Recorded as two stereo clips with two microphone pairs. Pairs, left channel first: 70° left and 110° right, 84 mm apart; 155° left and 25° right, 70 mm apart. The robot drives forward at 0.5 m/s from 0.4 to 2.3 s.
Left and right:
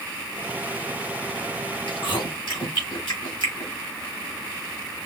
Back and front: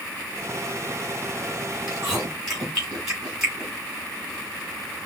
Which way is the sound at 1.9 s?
50° left.